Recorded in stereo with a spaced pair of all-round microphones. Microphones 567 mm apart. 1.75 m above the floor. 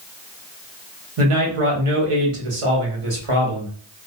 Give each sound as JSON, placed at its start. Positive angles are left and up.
{"t": 1.2, "sound": "a man speaking", "side_deg": -60, "distance_m": 1.0}